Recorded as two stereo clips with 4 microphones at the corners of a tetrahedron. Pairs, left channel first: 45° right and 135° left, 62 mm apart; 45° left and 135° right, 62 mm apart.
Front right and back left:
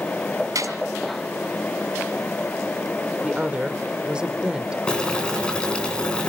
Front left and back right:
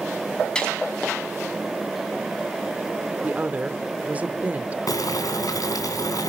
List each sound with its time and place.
0.6 s a gunshot: 120° left, 2.5 m
3.2 s a woman speaking: 170° right, 1.1 m
4.9 s boiling: 30° left, 3 m